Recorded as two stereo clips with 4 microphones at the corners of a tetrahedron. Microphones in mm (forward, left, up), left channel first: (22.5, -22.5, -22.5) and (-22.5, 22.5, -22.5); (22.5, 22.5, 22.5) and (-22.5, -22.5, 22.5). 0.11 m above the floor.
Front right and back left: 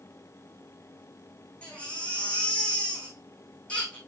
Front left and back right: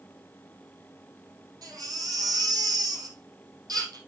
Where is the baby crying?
115° right, 4 m.